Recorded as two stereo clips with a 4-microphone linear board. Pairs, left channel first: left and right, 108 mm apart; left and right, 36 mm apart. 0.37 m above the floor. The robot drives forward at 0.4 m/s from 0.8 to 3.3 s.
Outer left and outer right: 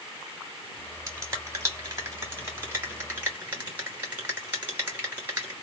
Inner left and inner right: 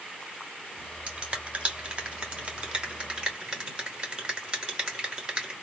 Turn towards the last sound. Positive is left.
turn(degrees=-20)  # may be behind; listen again after turning